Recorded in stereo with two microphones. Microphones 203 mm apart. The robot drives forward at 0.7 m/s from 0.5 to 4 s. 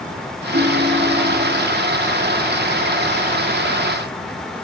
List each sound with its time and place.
0.5 s a ringtone: 75° right (ahead or behind), 1.6 m; by 1.6 s 55° right (ahead or behind), 1.9 m